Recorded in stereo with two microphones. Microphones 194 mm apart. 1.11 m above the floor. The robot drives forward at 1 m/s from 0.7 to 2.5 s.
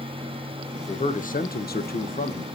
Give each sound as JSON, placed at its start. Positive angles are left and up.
{"t": 0.9, "sound": "a man speaking", "side_deg": 35, "distance_m": 1.2}